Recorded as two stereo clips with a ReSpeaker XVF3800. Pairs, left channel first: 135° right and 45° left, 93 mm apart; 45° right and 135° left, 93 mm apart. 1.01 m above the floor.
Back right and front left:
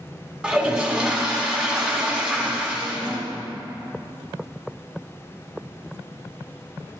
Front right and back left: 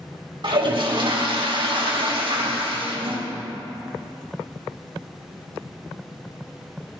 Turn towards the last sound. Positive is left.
turn(degrees=120)